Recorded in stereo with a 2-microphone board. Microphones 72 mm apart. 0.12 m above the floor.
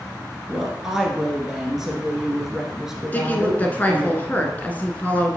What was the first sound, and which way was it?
A woman speaking, 5° right (ahead or behind).